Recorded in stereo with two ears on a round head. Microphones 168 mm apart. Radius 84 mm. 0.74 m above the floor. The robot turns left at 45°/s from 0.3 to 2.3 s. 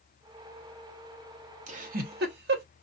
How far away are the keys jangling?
I don't hear keys jangling.